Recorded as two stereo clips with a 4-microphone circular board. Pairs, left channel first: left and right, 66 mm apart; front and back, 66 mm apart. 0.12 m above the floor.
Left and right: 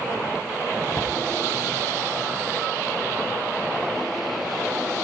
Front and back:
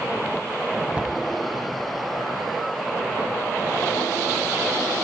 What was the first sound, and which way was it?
A cupboard door, 115° left.